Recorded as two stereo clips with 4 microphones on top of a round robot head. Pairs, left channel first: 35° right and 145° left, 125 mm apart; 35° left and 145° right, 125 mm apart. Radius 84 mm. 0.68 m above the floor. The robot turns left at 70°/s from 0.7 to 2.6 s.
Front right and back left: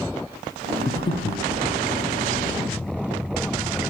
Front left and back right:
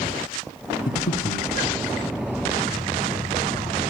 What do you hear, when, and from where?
0.9 s breathing: 35° left, 0.7 m; by 1.5 s 10° right, 0.7 m